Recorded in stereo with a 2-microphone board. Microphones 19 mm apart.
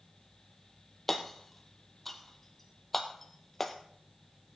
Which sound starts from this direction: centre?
Hammering, at 1.1 s.